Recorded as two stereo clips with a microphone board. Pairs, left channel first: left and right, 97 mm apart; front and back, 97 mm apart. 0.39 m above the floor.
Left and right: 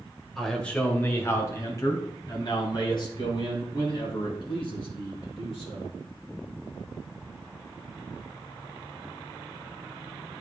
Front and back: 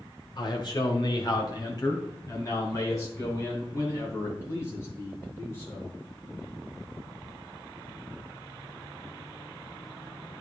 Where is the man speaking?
5° left, 1.4 m; by 5.9 s 65° left, 5.5 m.